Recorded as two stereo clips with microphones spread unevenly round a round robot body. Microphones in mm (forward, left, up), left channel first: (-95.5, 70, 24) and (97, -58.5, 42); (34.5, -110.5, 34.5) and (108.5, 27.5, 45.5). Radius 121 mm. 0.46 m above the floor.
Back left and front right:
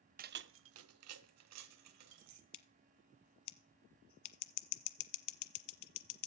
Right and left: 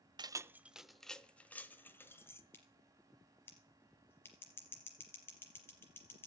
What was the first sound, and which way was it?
Keys jangling, 5° left.